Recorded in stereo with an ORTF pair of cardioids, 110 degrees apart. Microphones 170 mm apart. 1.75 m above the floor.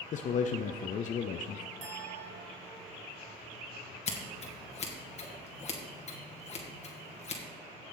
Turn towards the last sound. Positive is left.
turn(degrees=40)